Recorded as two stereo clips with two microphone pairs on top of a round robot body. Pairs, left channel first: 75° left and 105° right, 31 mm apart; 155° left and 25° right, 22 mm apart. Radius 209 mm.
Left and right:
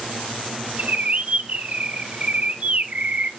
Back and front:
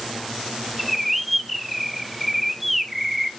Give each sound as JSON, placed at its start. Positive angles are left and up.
{"t": 0.8, "sound": "a bird", "azimuth_deg": -110, "distance_m": 1.4}